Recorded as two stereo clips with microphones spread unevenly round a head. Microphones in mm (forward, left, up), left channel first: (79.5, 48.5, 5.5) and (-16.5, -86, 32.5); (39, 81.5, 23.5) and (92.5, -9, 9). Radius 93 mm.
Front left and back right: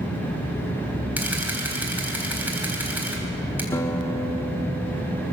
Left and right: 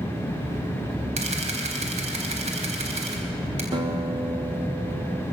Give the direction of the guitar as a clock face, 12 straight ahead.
1 o'clock.